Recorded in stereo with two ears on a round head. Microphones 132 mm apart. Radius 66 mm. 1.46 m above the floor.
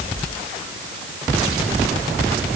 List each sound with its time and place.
Only background noise.